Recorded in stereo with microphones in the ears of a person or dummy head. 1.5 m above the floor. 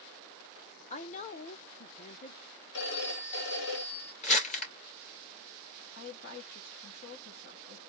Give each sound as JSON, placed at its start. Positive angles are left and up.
{"t": 0.9, "sound": "a woman speaking", "side_deg": 30, "distance_m": 0.8}
{"t": 2.7, "sound": "a phone ringing", "side_deg": 65, "distance_m": 1.5}
{"t": 4.2, "sound": "crumpling", "side_deg": 45, "distance_m": 2.0}
{"t": 6.0, "sound": "a woman speaking", "side_deg": 60, "distance_m": 2.0}